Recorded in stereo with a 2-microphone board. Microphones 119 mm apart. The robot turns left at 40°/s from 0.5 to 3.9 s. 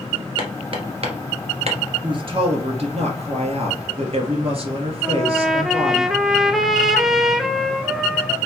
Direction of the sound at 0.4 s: 40° right (ahead or behind).